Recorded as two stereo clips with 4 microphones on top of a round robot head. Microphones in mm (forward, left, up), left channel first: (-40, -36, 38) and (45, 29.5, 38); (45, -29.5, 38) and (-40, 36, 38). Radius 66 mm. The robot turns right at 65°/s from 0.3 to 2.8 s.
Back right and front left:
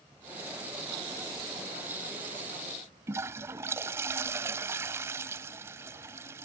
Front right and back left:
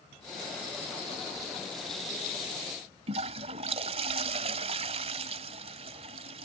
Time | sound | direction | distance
3.1 | a toilet flushing | 105° left | ?